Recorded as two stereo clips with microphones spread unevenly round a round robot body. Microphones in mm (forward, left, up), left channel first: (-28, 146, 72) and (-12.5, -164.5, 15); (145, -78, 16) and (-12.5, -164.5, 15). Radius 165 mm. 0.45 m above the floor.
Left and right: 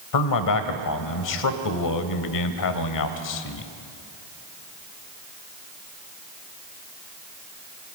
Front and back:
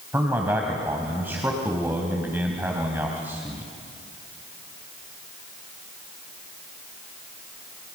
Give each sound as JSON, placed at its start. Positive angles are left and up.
{"t": 0.1, "sound": "a man speaking", "azimuth_deg": 125, "distance_m": 2.0}